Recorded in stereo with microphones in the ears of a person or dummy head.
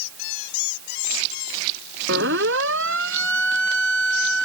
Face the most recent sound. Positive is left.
turn(degrees=-70)  # may be behind; listen again after turning